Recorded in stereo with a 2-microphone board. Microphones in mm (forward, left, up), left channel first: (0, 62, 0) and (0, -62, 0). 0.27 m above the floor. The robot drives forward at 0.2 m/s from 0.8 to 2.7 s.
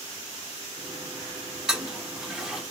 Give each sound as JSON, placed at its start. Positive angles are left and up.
{"t": 1.7, "sound": "a toilet flushing", "side_deg": -5, "distance_m": 1.2}